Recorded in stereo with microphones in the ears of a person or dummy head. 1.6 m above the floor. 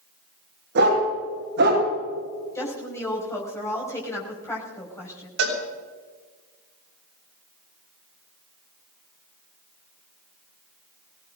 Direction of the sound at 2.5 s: 10° left (ahead or behind).